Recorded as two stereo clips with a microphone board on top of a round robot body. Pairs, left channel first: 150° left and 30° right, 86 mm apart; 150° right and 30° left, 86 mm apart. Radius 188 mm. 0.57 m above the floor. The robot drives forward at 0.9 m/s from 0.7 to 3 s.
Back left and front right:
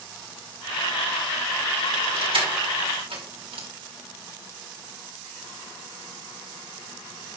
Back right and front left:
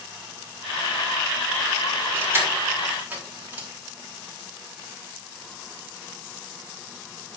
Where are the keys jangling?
30° right, 4 m; by 3.7 s 40° right, 3.5 m.